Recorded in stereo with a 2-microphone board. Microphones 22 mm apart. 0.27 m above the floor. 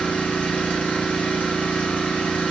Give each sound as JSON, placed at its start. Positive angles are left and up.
{"t": 0.0, "sound": "an engine running", "side_deg": 80, "distance_m": 3.0}